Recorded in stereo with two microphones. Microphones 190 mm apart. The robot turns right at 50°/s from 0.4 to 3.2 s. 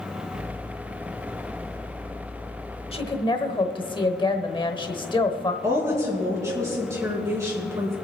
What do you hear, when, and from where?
2.9 s a woman speaking: 35° left (ahead or behind), 1.1 m; by 5.5 s 30° left (ahead or behind), 1.1 m
5.6 s a woman speaking: 15° right (ahead or behind), 4 m